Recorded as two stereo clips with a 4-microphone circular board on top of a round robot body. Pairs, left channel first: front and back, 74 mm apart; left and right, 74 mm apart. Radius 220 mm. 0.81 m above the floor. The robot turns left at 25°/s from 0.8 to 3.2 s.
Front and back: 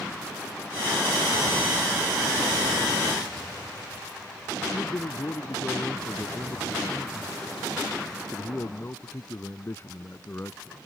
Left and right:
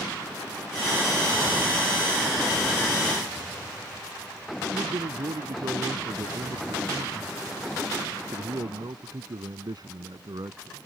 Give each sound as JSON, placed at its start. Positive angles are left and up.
{"t": 4.7, "sound": "a man speaking", "azimuth_deg": -60}